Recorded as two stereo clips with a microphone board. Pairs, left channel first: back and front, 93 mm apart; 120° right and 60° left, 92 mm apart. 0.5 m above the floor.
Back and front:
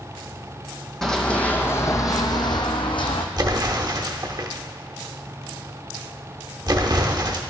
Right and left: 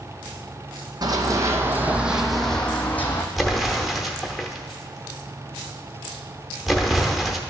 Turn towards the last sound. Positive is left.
turn(degrees=-30)